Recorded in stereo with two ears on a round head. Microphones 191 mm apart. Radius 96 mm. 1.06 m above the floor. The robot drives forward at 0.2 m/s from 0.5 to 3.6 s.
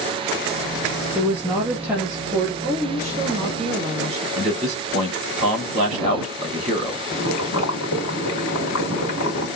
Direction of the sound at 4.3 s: 35° right (ahead or behind).